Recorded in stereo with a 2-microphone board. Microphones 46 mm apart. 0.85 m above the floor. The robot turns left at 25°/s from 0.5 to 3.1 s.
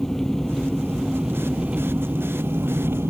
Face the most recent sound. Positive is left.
turn(degrees=-55)